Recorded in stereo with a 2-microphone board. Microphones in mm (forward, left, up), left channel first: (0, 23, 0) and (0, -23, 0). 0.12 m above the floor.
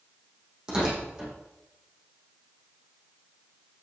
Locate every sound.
0.7 s tearing paper: 15° right (ahead or behind), 6 m